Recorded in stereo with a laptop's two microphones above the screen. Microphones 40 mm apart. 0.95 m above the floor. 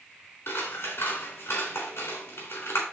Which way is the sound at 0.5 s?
80° left.